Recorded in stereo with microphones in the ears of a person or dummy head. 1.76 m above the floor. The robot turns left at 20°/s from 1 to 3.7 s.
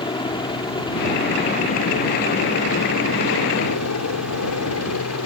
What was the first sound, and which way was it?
A helicopter, 20° left (ahead or behind).